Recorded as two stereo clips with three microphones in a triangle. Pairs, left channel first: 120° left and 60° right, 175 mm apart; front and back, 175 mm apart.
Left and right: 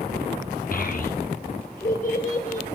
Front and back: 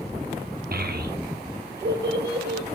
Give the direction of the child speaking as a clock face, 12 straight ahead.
7 o'clock.